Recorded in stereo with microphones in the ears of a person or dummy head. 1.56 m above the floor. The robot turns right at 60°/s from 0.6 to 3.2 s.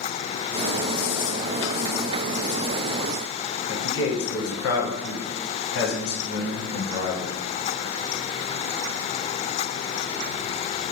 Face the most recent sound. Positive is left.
turn(degrees=70)  # may be behind; listen again after turning